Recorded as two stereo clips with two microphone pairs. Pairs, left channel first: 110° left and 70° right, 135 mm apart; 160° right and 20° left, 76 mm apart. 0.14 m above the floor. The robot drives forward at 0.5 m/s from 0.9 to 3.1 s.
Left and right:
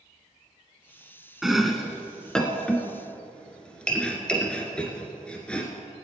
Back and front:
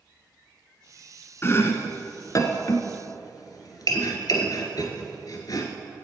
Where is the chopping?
160° right, 1.0 m; by 5.7 s 170° right, 1.6 m.